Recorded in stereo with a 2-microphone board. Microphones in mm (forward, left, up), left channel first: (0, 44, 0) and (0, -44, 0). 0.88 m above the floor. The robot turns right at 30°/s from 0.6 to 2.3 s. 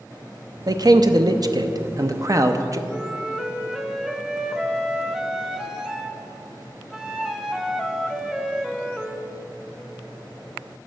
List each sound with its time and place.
0.7 s a man speaking: 105° right, 0.6 m; by 2.8 s 55° right, 0.6 m
2.9 s a flute: 5° right (ahead or behind), 0.7 m